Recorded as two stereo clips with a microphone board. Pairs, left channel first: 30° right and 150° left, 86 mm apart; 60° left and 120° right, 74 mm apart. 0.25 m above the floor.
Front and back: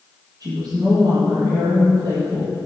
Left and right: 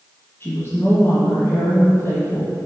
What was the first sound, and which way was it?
A woman speaking, 115° left.